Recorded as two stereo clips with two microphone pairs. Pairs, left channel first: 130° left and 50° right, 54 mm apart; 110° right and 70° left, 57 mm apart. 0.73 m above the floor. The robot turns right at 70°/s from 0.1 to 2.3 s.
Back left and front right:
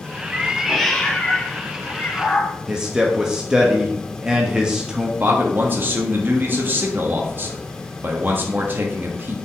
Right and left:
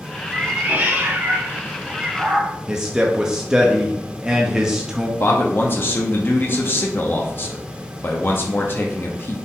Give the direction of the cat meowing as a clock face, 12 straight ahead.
12 o'clock.